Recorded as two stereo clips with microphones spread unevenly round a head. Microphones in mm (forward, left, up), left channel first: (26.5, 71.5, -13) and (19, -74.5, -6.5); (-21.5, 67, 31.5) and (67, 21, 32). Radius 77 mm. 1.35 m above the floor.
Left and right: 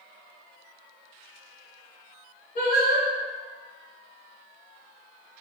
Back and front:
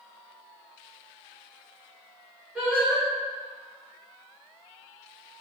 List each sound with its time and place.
2.5 s singing: 55° left, 1.4 m